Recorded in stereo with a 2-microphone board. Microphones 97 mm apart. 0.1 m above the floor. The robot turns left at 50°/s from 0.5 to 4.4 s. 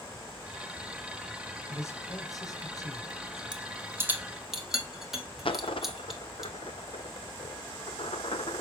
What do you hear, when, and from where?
1.7 s a man speaking: 135° left, 1.6 m; by 3.4 s 50° left, 1.6 m
3.5 s a rattle: 45° right (ahead or behind), 1.3 m; by 6.5 s 5° right (ahead or behind), 1.3 m
5.5 s a dropped coin: 65° left (ahead or behind), 0.6 m